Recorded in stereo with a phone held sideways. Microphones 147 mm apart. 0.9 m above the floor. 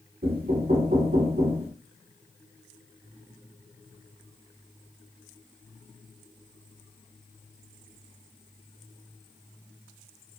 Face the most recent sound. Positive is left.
turn(degrees=-80)